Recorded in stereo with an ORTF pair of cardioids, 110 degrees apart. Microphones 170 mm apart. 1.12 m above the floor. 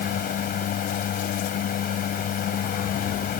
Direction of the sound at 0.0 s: 60° left.